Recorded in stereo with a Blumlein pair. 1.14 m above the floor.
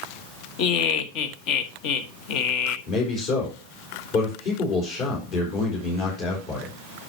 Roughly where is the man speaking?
Ahead left.